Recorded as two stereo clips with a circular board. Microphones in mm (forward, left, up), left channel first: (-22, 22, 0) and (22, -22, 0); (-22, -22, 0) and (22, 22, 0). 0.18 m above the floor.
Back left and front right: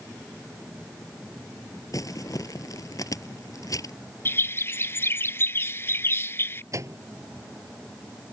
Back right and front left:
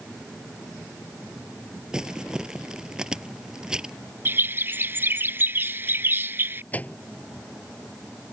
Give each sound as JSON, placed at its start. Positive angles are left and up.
{"t": 1.9, "sound": "crumpling", "azimuth_deg": 120}
{"t": 4.2, "sound": "a bird", "azimuth_deg": 90}
{"t": 6.7, "sound": "a microwave", "azimuth_deg": -75}